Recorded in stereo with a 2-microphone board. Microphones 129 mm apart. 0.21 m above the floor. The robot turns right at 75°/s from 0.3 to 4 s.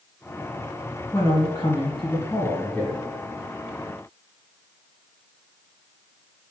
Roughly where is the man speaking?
Ahead left.